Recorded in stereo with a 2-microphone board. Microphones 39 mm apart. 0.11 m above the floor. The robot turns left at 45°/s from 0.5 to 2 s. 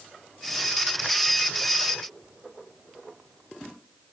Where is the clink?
I don't hear a clink.